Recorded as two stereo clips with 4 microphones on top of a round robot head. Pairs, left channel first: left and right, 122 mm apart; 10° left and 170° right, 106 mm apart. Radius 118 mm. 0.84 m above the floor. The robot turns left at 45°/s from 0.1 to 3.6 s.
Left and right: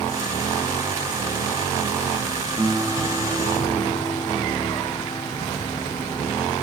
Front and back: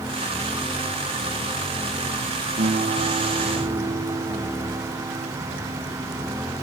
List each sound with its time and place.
2.6 s a guitar: 160° right, 2.5 m; by 5.3 s 155° left, 2.5 m